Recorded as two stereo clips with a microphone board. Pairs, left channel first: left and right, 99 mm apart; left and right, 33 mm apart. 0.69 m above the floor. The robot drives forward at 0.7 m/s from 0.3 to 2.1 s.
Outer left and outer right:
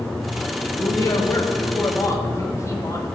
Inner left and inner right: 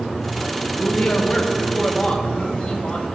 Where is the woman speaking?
30° left (ahead or behind), 1.3 m.